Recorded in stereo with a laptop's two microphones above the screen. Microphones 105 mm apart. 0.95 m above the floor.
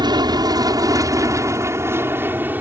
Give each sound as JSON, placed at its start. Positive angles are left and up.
{"t": 0.0, "sound": "an aircraft", "side_deg": -45}